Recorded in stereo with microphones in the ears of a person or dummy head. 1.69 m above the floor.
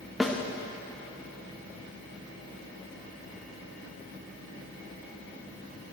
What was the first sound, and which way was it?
A snare drum, 5° left (ahead or behind).